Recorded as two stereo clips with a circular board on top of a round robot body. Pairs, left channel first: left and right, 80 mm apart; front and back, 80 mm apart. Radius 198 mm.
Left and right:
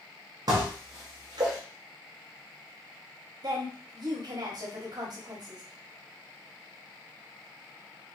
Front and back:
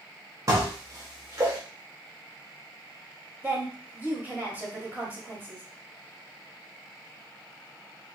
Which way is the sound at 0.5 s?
130° right.